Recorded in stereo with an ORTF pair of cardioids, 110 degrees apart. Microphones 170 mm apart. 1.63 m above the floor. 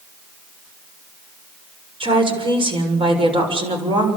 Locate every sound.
2.0 s a woman speaking: 30° right, 7 m